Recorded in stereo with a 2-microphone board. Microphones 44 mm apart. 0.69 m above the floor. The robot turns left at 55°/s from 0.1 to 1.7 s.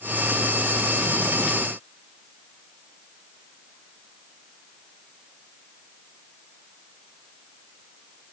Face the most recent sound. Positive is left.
No sound to turn to.